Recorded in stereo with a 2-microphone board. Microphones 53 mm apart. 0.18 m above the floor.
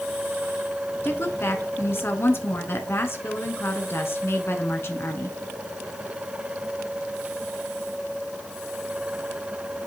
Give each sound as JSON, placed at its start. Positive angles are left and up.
{"t": 1.0, "sound": "a woman speaking", "side_deg": 50, "distance_m": 1.6}